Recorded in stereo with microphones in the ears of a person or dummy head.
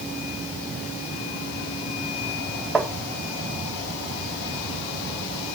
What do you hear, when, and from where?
2.8 s tapping: centre (ahead or behind), 1.1 m